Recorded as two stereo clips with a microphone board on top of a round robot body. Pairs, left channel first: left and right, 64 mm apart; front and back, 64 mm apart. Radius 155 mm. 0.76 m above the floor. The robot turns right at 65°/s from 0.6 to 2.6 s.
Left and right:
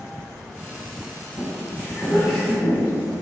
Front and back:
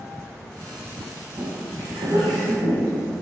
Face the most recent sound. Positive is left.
turn(degrees=-160)